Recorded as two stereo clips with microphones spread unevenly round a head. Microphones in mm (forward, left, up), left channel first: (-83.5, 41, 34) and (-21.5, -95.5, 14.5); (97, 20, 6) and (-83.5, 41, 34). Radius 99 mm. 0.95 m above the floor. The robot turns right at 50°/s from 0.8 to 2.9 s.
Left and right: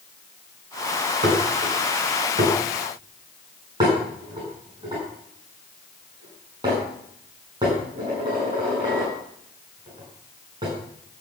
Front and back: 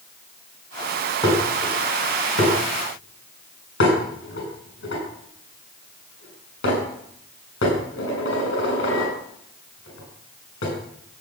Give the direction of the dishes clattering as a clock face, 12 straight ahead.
3 o'clock.